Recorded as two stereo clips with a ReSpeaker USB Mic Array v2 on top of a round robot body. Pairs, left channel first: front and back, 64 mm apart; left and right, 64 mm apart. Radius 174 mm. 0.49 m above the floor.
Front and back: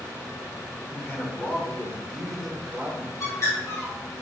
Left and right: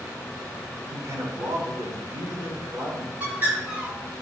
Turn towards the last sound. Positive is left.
turn(degrees=-30)